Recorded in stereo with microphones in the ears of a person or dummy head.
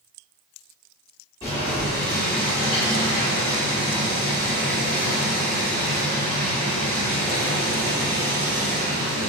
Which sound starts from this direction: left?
Boiling, at 1.4 s.